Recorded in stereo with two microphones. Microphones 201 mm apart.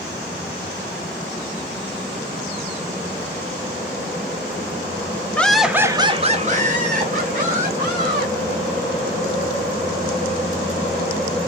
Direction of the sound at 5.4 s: 5° left (ahead or behind).